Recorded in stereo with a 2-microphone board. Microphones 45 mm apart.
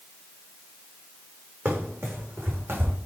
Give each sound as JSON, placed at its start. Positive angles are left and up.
{"t": 1.6, "sound": "running footsteps", "side_deg": -70, "distance_m": 3.5}